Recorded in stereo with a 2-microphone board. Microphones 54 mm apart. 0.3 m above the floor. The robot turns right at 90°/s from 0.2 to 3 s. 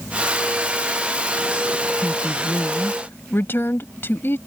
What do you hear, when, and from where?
2.0 s a woman speaking: 20° right; by 4.4 s 70° left